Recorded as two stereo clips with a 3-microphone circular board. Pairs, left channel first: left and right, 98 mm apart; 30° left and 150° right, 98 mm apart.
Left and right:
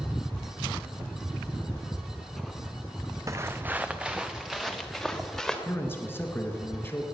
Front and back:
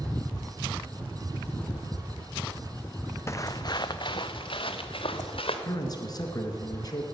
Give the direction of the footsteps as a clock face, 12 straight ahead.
1 o'clock.